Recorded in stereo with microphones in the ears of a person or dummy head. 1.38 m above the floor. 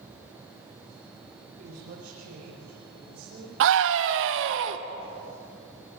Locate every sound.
1.6 s a woman speaking: 55° right (ahead or behind), 4.5 m
3.6 s a scream: 70° right (ahead or behind), 1.1 m